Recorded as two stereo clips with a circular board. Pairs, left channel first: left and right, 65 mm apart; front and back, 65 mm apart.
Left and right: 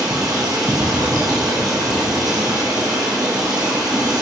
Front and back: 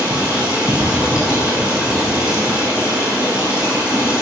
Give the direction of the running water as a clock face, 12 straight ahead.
4 o'clock.